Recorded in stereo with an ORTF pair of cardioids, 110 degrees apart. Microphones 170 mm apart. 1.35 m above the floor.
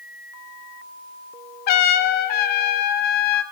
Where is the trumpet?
60° left, 0.6 m.